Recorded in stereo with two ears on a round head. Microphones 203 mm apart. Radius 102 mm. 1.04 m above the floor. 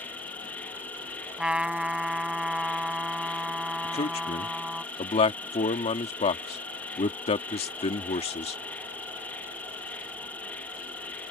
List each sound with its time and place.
0.0 s an insect: 5° left (ahead or behind)
1.4 s a trumpet: 5° right (ahead or behind)
3.8 s a man speaking: 25° left (ahead or behind)